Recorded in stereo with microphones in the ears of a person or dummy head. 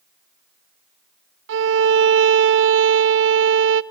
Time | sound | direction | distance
1.5 | a violin | 65° right (ahead or behind) | 0.8 m